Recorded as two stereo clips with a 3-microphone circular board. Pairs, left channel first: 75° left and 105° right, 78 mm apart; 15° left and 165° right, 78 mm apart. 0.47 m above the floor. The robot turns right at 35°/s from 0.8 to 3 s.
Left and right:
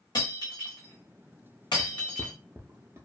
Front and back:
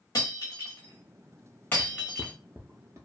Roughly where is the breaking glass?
Ahead left.